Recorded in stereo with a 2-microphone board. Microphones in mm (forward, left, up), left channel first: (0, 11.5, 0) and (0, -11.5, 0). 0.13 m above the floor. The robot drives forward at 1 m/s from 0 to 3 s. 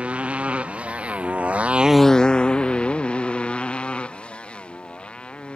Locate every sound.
0.0 s a motorcycle: 65° right (ahead or behind); by 5.6 s 50° left (ahead or behind)